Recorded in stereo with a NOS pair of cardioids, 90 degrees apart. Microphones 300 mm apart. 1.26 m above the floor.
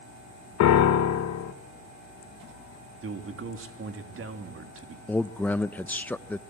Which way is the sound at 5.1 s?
5° left.